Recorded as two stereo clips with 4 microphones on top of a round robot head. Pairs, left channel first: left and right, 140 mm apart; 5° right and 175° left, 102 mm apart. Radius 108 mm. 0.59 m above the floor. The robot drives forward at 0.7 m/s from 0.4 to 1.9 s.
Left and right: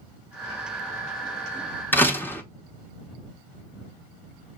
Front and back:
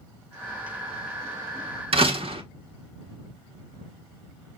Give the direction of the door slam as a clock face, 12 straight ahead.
7 o'clock.